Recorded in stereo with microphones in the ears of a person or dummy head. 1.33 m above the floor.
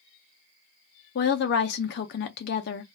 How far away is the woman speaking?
About 0.6 m.